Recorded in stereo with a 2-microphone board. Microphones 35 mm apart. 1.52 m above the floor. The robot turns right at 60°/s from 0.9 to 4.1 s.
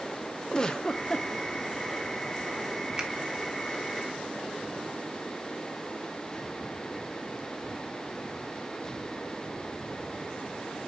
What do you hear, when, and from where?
0.5 s a giggle: 20° left (ahead or behind), 0.6 m; by 1.3 s 30° left (ahead or behind), 0.6 m
3.0 s a finger snap: 25° right (ahead or behind), 1.4 m; by 3.1 s 30° right (ahead or behind), 1.4 m